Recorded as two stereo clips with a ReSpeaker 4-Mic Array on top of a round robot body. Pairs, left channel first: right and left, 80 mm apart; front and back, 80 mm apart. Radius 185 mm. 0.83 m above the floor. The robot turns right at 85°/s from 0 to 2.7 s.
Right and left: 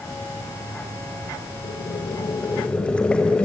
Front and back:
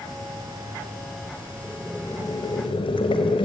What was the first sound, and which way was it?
Boiling, 105° right.